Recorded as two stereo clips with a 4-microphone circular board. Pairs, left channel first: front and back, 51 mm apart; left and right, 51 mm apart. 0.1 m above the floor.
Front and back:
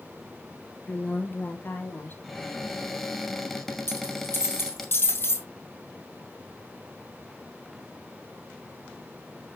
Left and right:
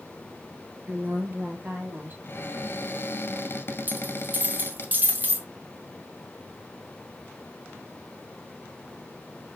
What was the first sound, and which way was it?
A woman speaking, 55° right.